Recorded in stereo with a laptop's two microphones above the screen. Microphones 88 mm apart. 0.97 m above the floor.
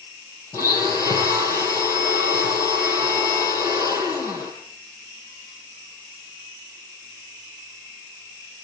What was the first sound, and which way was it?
A blender, 35° left (ahead or behind).